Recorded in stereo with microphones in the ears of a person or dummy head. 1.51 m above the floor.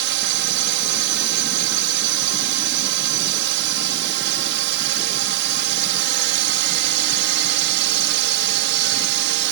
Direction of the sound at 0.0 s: 65° right (ahead or behind).